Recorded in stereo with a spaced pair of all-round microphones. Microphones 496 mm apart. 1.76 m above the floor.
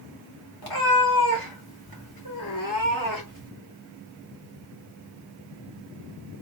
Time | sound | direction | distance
0.6 | a cat meowing | 45° left (ahead or behind) | 1.4 m